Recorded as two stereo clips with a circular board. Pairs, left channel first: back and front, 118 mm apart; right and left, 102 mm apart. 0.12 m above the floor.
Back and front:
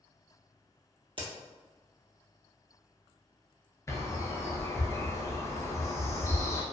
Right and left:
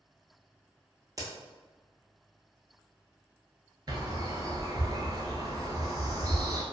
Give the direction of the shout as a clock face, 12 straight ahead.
No shout in this recording.